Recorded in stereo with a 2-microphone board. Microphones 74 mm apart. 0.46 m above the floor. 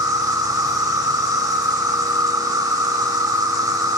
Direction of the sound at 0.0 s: 65° right (ahead or behind).